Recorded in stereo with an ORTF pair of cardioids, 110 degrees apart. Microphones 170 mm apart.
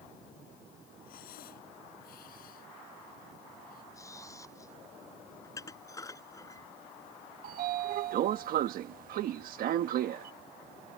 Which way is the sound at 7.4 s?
65° right.